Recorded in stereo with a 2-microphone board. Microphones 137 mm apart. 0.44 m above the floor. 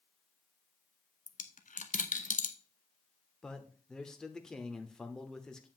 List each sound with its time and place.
1.3 s a dropped coin: 70° left (ahead or behind), 0.8 m
3.4 s a man speaking: 5° left (ahead or behind), 0.9 m